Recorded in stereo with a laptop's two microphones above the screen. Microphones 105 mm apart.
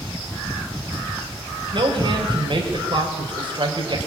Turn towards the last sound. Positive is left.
turn(degrees=-50)  # may be behind; listen again after turning